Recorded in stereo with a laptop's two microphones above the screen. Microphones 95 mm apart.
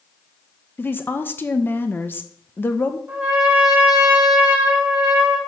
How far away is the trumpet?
About 1.8 m.